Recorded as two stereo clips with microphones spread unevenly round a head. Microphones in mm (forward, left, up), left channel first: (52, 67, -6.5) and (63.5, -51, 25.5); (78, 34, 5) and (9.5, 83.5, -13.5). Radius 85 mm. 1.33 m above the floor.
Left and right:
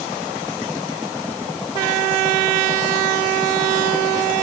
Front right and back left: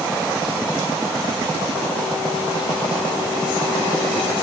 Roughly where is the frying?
No frying in this recording.